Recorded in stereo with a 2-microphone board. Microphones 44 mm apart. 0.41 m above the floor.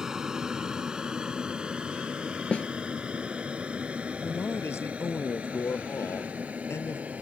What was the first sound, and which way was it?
An aircraft, 15° right (ahead or behind).